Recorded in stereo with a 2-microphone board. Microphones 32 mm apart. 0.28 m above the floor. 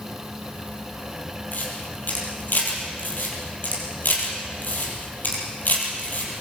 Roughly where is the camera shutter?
Left.